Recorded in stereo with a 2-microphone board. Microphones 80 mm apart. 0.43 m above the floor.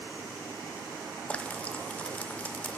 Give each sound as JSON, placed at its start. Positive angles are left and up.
{"t": 1.3, "sound": "frying", "side_deg": 15, "distance_m": 0.6}